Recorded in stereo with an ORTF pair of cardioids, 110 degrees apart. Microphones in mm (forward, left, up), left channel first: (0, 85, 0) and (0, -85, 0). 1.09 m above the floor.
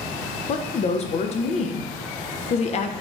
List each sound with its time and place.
0.5 s a woman speaking: 40° left, 0.5 m